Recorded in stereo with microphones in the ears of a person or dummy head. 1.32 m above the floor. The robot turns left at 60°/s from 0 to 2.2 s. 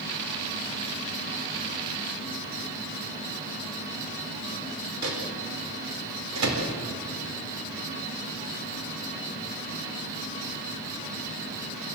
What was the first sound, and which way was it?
A microwave, 70° right (ahead or behind).